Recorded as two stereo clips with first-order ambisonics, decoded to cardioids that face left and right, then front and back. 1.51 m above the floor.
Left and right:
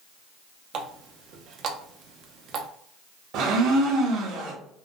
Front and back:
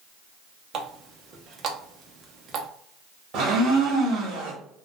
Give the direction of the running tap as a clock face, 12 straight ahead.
4 o'clock.